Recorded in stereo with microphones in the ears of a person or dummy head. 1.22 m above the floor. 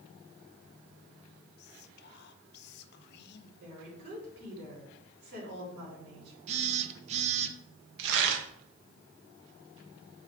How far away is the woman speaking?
About 3.5 m.